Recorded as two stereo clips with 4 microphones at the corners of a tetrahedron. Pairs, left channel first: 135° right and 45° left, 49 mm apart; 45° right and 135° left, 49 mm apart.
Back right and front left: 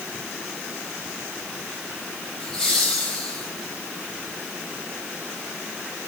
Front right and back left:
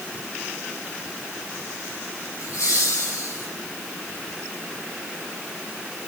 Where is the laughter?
55° right, 8.5 m.